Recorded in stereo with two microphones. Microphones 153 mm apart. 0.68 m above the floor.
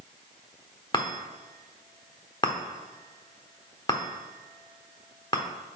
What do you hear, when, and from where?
0.9 s a chime: 30° left (ahead or behind), 1.0 m